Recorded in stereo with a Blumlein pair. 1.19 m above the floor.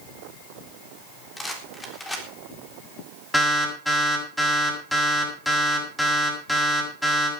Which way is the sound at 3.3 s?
10° left.